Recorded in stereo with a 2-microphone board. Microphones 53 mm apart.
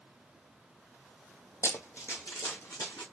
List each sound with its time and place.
1.6 s running footsteps: 60° left (ahead or behind), 0.8 m; by 3.0 s 80° left, 2.0 m